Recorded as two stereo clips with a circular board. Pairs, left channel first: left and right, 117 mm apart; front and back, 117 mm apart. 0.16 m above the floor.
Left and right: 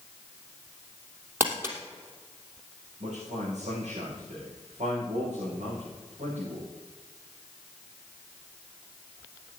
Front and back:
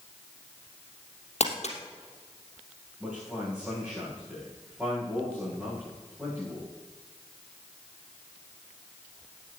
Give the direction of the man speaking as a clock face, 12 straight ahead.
3 o'clock.